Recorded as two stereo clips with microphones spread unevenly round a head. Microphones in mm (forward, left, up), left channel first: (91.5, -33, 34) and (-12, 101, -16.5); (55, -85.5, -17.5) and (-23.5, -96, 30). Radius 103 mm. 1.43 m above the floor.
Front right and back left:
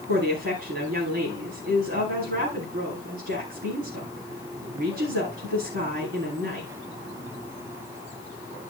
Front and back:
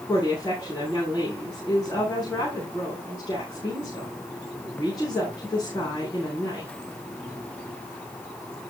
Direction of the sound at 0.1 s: 110° left.